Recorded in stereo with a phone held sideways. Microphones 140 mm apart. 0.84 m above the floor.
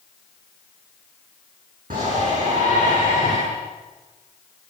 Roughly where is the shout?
Right.